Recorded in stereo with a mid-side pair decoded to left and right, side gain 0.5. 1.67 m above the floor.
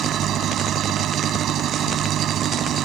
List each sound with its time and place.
0.0 s an engine running: 60° right